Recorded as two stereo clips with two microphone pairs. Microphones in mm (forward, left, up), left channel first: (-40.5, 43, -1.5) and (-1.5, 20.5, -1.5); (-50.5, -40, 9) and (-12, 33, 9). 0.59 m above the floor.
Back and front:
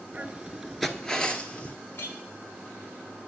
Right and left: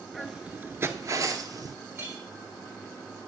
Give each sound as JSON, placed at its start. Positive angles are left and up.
{"t": 0.1, "sound": "footsteps", "azimuth_deg": -35, "distance_m": 0.6}
{"t": 1.9, "sound": "a clink", "azimuth_deg": 120, "distance_m": 1.4}